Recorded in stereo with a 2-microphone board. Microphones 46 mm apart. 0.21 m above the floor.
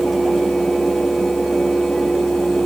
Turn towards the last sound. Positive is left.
No sound to turn to.